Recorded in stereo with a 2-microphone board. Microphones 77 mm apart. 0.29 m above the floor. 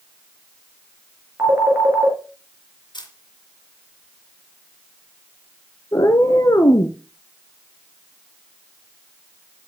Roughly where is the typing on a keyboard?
I don't hear typing on a keyboard.